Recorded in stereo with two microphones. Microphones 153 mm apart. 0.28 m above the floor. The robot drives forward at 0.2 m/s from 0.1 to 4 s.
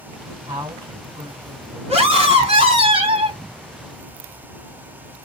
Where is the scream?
45° right (ahead or behind), 1.8 m; by 3.4 s 40° right (ahead or behind), 1.9 m.